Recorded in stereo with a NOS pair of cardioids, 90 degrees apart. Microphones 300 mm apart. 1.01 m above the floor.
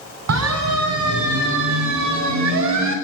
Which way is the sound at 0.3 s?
60° right.